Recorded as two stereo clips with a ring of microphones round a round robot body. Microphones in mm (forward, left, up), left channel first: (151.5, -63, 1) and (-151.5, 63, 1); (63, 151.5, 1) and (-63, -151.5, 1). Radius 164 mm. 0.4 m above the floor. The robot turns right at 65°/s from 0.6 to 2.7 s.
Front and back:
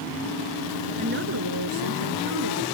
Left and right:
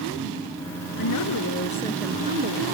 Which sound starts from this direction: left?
A woman speaking, at 1.0 s.